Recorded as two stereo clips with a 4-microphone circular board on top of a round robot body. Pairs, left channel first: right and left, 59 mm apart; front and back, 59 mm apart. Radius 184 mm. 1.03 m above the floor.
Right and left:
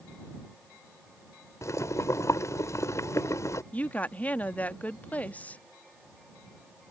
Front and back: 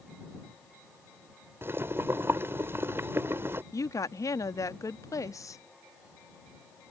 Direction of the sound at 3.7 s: 25° right.